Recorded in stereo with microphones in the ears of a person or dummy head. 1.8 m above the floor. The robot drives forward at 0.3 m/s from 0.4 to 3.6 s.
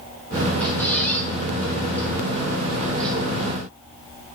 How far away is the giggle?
No giggle in this recording.